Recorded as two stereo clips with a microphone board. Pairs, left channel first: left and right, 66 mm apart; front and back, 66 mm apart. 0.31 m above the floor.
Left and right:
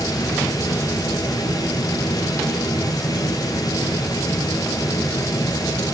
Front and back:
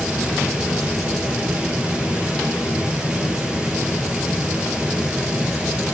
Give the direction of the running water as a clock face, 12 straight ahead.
9 o'clock.